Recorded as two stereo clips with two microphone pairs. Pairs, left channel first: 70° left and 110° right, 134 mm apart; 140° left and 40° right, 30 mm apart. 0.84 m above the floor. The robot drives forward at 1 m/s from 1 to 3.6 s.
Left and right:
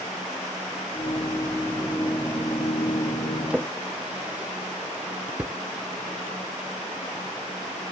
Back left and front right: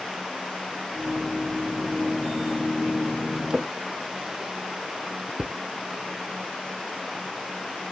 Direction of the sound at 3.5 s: 45° right.